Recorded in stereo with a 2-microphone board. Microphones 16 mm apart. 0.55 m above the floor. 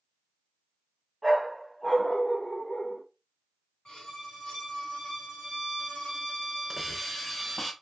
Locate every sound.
1.2 s a dog barking: 10° right (ahead or behind), 1.0 m; by 3.0 s 75° left (ahead or behind), 1.2 m
3.9 s a violin: 75° left (ahead or behind), 1.4 m
6.7 s a hiss: 10° left (ahead or behind), 0.6 m